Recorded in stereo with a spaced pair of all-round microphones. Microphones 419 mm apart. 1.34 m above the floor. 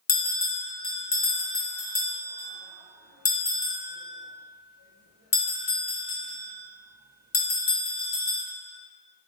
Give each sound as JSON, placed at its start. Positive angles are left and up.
{"t": 0.1, "sound": "a bell", "side_deg": 40, "distance_m": 0.6}